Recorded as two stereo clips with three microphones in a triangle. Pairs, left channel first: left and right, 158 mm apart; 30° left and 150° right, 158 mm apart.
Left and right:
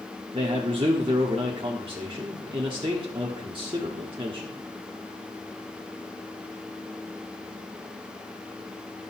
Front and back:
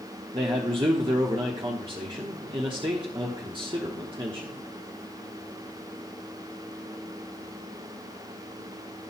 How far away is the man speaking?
About 1.0 m.